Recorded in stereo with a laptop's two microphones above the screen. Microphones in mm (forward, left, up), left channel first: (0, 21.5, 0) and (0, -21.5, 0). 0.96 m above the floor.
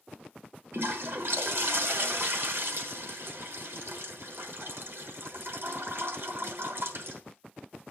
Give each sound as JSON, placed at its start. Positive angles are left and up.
{"t": 0.7, "sound": "a toilet flushing", "side_deg": -65, "distance_m": 1.2}